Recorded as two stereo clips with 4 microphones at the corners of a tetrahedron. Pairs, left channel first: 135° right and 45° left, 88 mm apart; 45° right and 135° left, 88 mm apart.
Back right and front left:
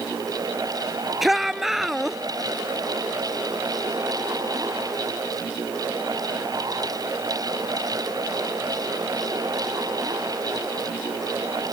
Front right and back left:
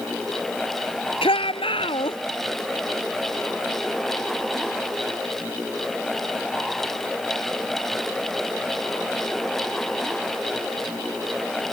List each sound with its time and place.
1.2 s a shout: 40° right